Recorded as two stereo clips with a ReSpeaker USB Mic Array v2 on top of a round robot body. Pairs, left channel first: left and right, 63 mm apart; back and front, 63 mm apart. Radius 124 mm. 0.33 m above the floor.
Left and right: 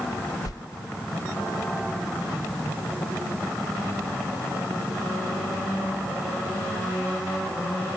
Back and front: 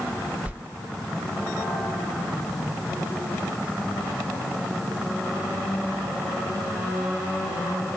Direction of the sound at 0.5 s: 70° left.